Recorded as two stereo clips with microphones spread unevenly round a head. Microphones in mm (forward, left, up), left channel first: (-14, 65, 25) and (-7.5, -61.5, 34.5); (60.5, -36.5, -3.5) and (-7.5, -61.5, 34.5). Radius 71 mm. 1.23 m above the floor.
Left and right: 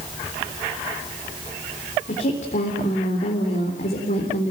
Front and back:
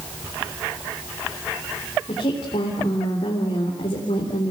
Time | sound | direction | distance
2.1 | a woman speaking | 55° left | 3.5 m